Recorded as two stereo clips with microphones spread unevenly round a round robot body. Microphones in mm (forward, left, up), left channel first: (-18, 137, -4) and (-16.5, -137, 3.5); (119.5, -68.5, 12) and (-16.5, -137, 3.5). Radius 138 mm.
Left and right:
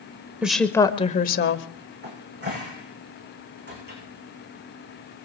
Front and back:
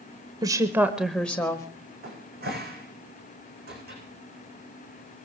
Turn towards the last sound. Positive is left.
turn(degrees=-145)